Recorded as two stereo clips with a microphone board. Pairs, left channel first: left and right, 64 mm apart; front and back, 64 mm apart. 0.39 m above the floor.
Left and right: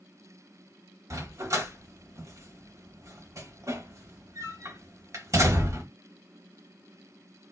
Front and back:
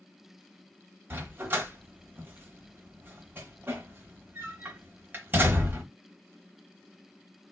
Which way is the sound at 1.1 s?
125° right.